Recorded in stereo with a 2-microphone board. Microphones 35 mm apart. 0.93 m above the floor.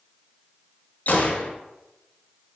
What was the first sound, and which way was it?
A gunshot, 50° left (ahead or behind).